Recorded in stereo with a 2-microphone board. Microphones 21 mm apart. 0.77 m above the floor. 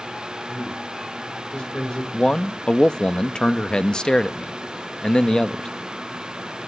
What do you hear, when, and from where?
0.5 s a man speaking: 60° left (ahead or behind), 3.5 m
2.1 s a man speaking: 40° left (ahead or behind), 0.5 m